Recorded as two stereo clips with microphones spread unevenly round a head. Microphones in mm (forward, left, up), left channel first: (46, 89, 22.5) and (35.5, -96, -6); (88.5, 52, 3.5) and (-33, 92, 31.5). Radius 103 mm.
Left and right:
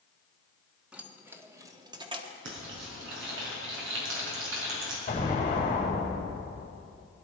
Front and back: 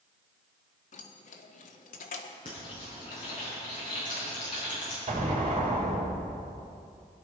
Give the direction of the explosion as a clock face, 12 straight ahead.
7 o'clock.